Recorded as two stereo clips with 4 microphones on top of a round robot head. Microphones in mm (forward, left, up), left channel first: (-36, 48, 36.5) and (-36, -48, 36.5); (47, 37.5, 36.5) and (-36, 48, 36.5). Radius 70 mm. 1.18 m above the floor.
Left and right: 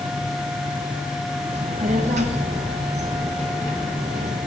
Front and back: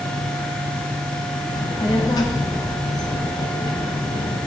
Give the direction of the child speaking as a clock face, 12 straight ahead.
2 o'clock.